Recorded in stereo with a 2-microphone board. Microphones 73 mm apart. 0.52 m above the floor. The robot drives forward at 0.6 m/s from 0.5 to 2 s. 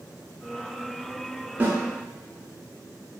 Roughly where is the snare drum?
Right.